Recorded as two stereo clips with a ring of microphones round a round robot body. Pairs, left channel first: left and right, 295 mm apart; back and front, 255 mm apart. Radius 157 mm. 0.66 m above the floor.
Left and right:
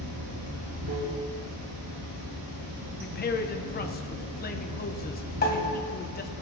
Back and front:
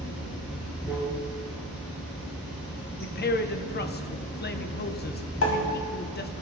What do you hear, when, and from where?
0.0 s running water: 110° right, 4.5 m
3.0 s a man speaking: 140° left, 0.8 m
5.4 s a pop: 150° left, 1.8 m